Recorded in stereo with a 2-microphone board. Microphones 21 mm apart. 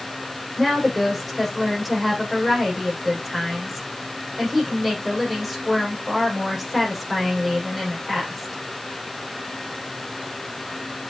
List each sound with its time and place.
0.6 s a woman speaking: 5° left (ahead or behind), 8 m